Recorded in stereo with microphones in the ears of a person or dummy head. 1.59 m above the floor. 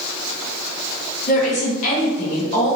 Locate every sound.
1.3 s a woman speaking: 45° left (ahead or behind), 1.2 m